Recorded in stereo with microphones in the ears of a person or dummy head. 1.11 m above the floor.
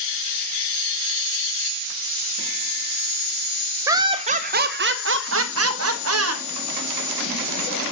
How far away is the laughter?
About 0.7 m.